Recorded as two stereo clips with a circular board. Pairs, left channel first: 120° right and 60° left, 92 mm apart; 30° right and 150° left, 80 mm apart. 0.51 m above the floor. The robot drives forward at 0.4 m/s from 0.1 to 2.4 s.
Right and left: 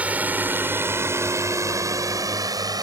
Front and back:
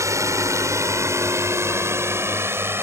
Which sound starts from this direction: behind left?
A drone, at 0.0 s.